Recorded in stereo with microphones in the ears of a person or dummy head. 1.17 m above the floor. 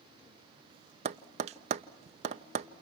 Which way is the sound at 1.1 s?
30° right (ahead or behind).